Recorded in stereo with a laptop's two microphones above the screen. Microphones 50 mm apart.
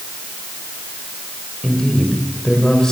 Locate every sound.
1.6 s a man speaking: 15° left (ahead or behind), 4 m